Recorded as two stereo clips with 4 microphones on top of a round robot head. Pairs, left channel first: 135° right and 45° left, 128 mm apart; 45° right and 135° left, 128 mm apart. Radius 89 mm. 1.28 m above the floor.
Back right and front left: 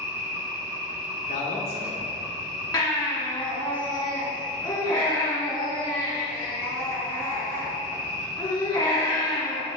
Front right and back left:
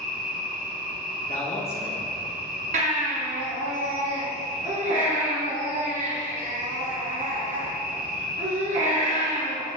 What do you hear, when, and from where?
0.0 s an insect: 115° left, 1.0 m
1.3 s a man speaking: 90° right, 1.0 m
2.7 s a baby crying: 160° left, 2 m